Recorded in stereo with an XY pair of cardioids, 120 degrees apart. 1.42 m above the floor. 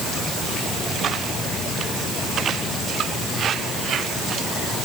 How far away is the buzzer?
I don't hear a buzzer.